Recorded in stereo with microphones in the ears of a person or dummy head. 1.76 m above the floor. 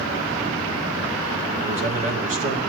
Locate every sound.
1.6 s a man speaking: 45° right (ahead or behind), 2 m